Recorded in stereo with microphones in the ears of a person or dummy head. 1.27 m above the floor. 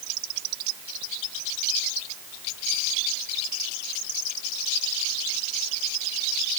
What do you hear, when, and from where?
Only background noise.